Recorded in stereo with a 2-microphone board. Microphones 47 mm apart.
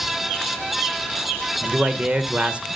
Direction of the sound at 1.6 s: 25° right (ahead or behind).